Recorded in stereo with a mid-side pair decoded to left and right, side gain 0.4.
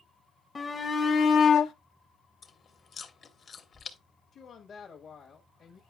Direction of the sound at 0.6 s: 30° left.